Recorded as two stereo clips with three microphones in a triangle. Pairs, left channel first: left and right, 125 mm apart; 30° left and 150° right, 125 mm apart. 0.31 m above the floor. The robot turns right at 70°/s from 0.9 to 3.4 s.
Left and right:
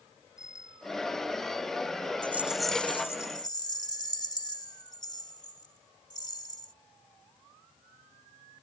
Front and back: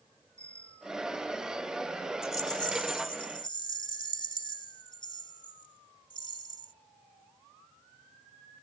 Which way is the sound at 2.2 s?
30° right.